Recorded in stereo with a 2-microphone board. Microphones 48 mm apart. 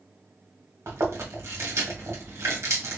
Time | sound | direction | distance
0.9 | chewing | 80° right | 1.6 m